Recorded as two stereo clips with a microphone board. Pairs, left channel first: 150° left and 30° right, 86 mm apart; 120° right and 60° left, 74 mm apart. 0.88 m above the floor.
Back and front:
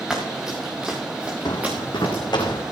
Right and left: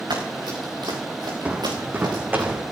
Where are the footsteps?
125° left, 2 m; by 2.6 s 120° left, 3 m.